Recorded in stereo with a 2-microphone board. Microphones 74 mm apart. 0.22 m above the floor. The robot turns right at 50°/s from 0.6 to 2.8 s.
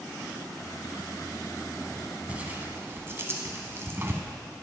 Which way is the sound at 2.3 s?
15° right (ahead or behind).